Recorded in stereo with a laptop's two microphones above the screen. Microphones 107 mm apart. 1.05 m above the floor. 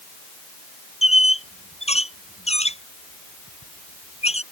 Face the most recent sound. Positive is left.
turn(degrees=85)